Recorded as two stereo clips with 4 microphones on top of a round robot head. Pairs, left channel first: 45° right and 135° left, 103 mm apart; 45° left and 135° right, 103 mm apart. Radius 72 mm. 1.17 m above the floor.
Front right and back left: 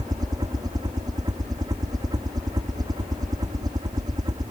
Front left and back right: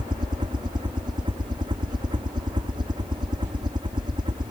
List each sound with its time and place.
0.0 s a helicopter: 175° right